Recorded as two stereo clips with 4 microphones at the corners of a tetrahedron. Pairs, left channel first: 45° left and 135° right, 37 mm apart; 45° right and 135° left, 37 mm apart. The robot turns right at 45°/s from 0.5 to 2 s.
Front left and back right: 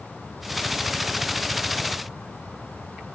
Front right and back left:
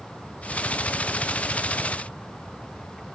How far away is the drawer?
No drawer in this recording.